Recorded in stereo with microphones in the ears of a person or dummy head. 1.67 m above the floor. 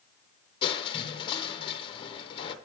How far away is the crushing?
About 1.2 m.